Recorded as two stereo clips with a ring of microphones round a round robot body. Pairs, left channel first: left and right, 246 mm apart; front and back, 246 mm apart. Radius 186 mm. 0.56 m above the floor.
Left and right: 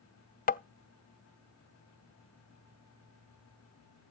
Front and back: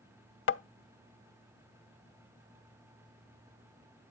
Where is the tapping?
35° left, 0.6 m.